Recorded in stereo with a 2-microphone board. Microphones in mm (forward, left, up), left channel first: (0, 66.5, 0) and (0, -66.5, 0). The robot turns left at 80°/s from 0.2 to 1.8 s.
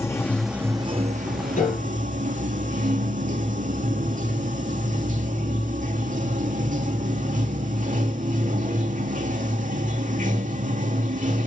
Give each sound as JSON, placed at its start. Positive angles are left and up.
{"t": 0.0, "sound": "running water", "azimuth_deg": 20, "distance_m": 0.9}
{"t": 1.6, "sound": "a piano", "side_deg": 60, "distance_m": 3.5}